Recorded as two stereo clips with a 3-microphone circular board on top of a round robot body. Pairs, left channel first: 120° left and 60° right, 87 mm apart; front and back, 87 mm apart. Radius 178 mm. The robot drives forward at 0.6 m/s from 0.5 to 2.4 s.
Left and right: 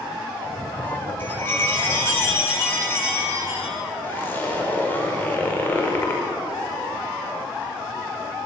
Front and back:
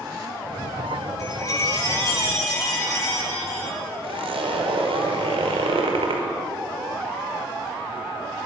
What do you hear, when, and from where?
1.2 s a chime: 50° left, 8.5 m; by 3.8 s 55° left, 8 m
4.0 s a zipper: 170° right, 5.5 m